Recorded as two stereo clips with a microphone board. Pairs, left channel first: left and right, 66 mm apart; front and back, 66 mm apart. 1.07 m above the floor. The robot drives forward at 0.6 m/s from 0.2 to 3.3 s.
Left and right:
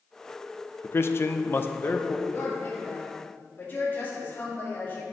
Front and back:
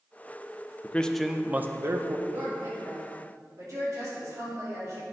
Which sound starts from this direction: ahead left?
A man speaking, at 0.8 s.